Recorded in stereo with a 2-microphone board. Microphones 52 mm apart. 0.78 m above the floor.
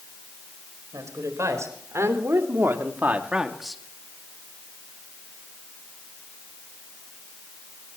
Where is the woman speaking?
75° right (ahead or behind), 4.5 m; by 3.8 s 5° left (ahead or behind), 1.7 m.